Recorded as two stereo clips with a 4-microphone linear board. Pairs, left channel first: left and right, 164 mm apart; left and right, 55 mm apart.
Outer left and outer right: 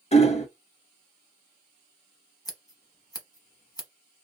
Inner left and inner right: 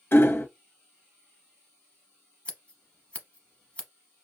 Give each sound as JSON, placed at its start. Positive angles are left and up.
{"t": 0.1, "sound": "hammering", "side_deg": 45, "distance_m": 0.5}
{"t": 2.5, "sound": "scissors", "side_deg": 25, "distance_m": 0.9}